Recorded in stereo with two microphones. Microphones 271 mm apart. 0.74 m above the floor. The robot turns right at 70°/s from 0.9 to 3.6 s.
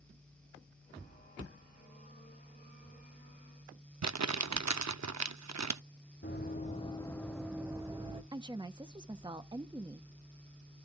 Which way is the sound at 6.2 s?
40° left (ahead or behind).